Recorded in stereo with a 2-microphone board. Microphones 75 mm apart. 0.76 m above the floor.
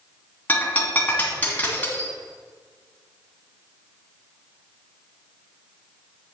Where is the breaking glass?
20° left (ahead or behind), 2.5 m.